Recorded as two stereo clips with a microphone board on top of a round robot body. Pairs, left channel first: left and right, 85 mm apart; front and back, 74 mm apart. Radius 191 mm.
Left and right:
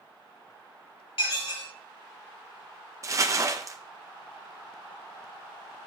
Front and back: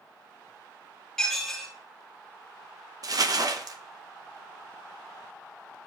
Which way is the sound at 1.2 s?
85° left.